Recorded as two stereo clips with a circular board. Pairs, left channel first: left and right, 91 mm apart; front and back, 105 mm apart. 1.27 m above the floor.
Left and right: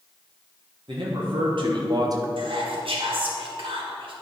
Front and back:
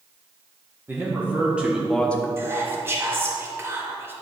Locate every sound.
0.9 s a man speaking: 110° right, 1.5 m; by 2.3 s 60° right, 0.6 m
2.4 s whispering: 110° right, 1.7 m